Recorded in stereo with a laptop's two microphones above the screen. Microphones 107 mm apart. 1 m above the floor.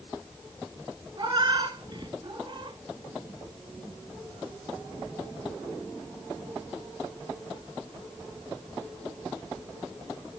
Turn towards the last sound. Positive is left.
turn(degrees=-40)  # may be behind; listen again after turning